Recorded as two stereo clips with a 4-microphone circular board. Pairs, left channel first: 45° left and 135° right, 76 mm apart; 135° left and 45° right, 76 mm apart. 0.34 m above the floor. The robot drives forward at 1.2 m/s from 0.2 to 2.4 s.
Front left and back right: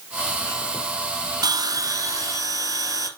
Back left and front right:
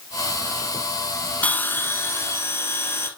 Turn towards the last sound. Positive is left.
turn(degrees=-175)